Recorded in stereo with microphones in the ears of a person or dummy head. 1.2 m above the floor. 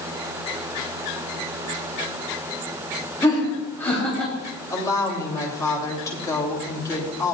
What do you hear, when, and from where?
3.2 s laughter: 20° left (ahead or behind), 3 m; by 4.3 s 10° left (ahead or behind), 3 m
4.7 s a woman speaking: 15° left (ahead or behind), 2.5 m